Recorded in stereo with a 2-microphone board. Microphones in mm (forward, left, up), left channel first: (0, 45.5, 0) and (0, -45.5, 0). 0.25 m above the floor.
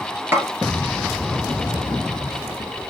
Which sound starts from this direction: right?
A snare drum, at 0.3 s.